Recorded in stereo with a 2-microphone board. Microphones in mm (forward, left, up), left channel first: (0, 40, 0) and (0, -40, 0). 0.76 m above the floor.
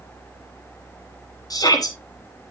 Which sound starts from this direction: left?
A shout, at 1.5 s.